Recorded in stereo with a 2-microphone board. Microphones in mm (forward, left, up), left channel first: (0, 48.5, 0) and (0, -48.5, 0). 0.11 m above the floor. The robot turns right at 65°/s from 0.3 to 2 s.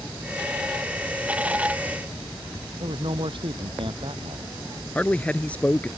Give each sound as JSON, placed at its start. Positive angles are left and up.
{"t": 2.8, "sound": "a man speaking", "side_deg": -65}
{"t": 5.0, "sound": "a man speaking", "side_deg": 15}